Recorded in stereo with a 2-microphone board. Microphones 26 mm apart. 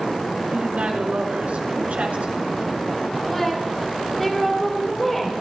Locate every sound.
0.5 s a woman speaking: 70° right (ahead or behind), 3.5 m
3.3 s a woman speaking: 5° left (ahead or behind), 5.5 m